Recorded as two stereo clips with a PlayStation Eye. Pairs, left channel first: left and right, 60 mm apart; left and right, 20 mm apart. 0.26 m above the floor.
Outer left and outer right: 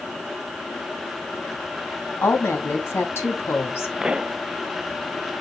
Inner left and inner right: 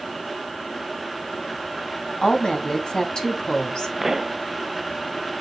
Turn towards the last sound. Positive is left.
turn(degrees=-15)  # may be behind; listen again after turning